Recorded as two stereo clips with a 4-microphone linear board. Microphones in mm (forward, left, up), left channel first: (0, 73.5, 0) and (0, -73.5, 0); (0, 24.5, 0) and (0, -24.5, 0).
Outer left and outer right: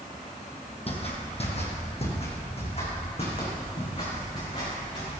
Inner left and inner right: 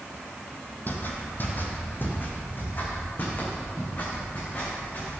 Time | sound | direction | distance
0.9 | footsteps | 45° left (ahead or behind) | 2 m